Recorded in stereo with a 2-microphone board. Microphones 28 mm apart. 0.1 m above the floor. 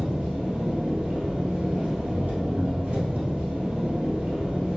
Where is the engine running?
55° right (ahead or behind), 1.3 m.